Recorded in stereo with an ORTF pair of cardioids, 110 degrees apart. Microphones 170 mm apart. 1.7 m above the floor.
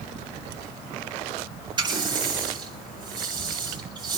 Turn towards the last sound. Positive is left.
turn(degrees=-25)